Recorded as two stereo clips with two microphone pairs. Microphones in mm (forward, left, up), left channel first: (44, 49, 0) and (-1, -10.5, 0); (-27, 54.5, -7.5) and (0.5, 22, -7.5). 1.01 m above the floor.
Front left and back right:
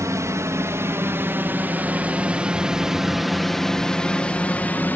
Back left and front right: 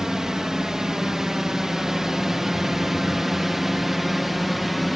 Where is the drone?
120° right; by 5.0 s 35° left.